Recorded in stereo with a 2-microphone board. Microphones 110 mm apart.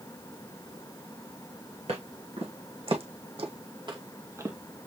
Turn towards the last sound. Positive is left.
turn(degrees=-10)  # may be behind; listen again after turning